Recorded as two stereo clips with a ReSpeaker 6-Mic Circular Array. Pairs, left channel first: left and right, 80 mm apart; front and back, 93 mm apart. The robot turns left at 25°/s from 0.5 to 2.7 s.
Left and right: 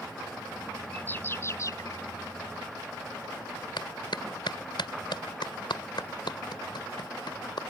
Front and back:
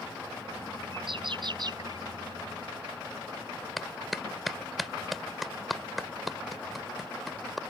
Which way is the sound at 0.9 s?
160° left.